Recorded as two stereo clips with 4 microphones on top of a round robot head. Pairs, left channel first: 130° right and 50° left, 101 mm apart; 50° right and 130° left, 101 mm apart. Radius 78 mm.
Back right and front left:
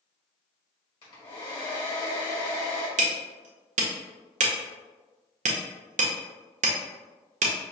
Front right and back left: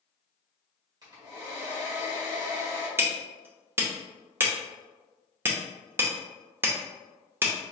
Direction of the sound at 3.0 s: 60° left.